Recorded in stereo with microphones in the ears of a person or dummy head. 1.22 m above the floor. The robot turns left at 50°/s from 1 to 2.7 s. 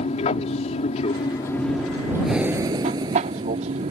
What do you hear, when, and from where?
0.0 s an aircraft: 45° left; by 3.9 s 40° right
2.2 s breathing: centre (ahead or behind); by 3.9 s 20° right (ahead or behind)